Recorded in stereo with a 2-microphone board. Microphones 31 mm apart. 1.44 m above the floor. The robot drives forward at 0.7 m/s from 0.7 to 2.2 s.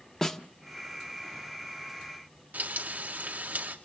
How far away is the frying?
About 2 m.